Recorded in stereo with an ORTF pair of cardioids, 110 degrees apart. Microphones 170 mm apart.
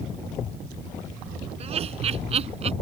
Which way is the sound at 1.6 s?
40° right.